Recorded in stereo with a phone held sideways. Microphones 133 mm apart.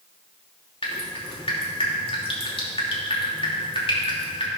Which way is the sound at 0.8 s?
45° left (ahead or behind).